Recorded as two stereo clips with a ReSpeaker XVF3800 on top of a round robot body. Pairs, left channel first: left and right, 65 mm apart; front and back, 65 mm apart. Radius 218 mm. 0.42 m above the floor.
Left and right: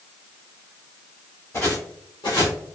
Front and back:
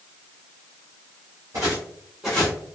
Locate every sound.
1.5 s footsteps: 145° left, 1.4 m; by 2.5 s 60° left, 0.9 m